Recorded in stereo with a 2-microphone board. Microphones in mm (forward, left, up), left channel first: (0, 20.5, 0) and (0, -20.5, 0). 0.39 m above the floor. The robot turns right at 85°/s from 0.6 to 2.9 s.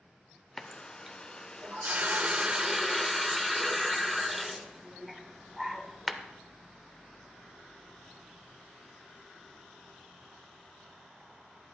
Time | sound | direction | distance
0.6 | a running tap | 165° left | 0.5 m